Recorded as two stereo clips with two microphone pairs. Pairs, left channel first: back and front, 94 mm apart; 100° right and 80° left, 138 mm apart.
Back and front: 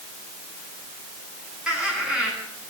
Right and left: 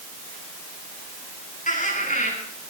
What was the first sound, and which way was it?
Laughter, 85° right.